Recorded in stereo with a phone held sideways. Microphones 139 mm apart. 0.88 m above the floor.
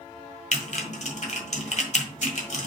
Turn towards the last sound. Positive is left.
turn(degrees=60)  # may be behind; listen again after turning